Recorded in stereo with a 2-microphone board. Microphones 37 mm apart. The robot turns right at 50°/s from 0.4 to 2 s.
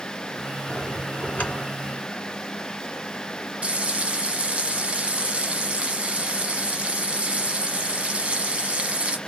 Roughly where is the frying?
Right.